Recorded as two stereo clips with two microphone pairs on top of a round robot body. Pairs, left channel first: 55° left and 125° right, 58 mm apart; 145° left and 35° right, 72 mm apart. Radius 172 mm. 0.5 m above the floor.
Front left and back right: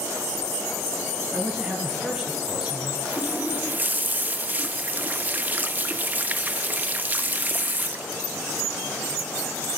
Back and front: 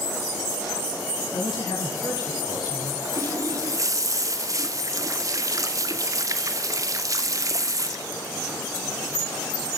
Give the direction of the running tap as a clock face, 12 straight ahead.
2 o'clock.